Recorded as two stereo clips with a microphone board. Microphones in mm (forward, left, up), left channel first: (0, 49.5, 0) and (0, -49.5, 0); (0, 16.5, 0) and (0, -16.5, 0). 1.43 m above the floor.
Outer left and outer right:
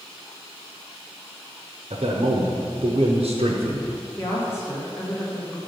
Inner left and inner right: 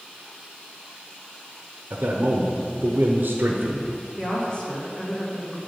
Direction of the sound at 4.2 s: 25° left (ahead or behind).